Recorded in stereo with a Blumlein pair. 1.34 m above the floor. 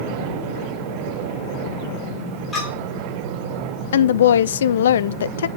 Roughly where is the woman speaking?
Ahead left.